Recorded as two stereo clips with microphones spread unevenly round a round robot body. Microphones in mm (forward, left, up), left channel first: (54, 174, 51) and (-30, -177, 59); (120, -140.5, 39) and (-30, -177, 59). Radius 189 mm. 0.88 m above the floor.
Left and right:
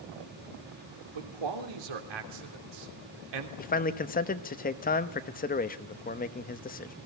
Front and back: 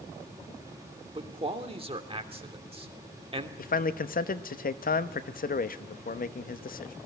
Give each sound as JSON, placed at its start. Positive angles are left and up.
{"t": 1.1, "sound": "a man speaking", "azimuth_deg": -110, "distance_m": 3.0}
{"t": 3.6, "sound": "a man speaking", "azimuth_deg": 10, "distance_m": 1.0}